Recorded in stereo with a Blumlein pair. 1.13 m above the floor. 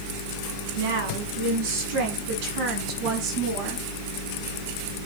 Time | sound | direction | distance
0.8 | a woman speaking | 55° right | 9.5 m